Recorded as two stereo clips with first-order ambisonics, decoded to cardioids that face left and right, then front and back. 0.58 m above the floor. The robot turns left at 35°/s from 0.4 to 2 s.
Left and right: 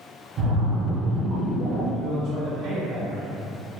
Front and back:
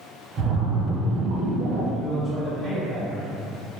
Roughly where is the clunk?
I don't hear a clunk.